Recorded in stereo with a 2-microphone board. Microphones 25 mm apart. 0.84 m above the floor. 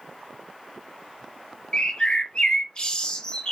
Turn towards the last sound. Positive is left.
turn(degrees=35)  # may be behind; listen again after turning